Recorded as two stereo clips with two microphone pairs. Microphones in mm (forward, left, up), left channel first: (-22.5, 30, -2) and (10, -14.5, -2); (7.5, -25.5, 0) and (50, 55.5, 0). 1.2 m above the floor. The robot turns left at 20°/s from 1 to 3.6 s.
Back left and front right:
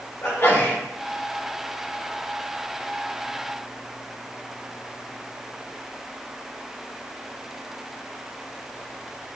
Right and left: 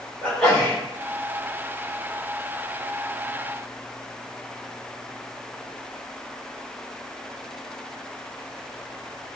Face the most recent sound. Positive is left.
turn(degrees=105)